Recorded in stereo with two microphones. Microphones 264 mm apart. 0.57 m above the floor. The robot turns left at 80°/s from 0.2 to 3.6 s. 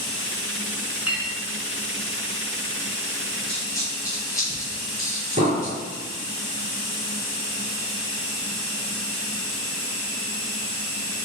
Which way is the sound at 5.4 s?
30° right (ahead or behind).